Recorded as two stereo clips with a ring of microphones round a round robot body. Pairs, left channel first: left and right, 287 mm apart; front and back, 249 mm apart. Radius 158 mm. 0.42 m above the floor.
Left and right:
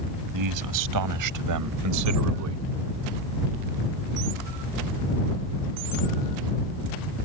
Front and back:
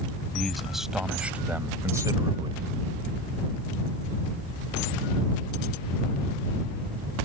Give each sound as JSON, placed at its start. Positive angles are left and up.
{"t": 0.3, "sound": "a man speaking", "azimuth_deg": -90}